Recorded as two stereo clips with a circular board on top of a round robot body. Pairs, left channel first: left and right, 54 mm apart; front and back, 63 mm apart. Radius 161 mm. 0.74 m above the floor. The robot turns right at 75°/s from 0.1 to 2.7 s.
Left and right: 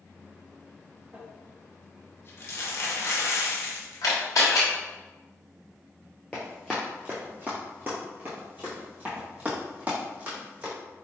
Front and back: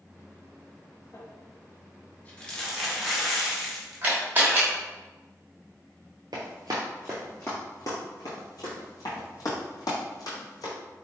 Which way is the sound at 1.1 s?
30° right.